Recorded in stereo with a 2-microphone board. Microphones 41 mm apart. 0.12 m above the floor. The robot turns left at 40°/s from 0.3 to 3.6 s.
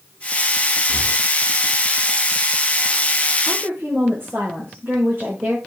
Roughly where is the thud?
No thud in this recording.